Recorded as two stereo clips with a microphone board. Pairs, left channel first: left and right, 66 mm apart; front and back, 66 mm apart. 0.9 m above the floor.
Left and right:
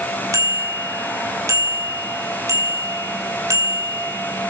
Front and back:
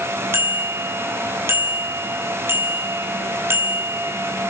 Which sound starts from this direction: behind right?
A bicycle bell, at 0.3 s.